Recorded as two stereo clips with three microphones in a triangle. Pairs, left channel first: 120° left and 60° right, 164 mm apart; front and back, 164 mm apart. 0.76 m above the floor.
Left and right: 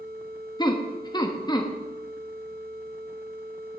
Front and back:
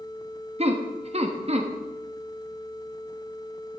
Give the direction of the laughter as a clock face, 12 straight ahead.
6 o'clock.